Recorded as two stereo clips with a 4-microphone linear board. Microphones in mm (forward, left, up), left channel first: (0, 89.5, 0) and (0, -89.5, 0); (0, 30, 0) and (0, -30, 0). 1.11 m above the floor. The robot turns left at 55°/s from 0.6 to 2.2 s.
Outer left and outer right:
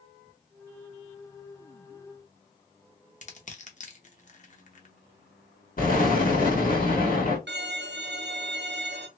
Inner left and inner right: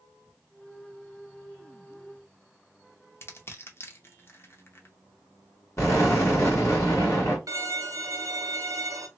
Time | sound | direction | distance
3.2 | crushing | 45° left (ahead or behind) | 0.7 m
5.8 | an explosion | 50° left (ahead or behind) | 1.6 m
7.5 | a violin | 75° right (ahead or behind) | 0.5 m